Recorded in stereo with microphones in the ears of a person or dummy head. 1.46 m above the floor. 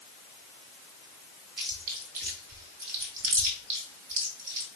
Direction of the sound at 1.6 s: 50° right (ahead or behind).